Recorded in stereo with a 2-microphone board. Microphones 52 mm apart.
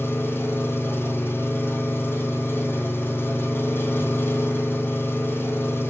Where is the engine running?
45° left (ahead or behind), 2.5 m.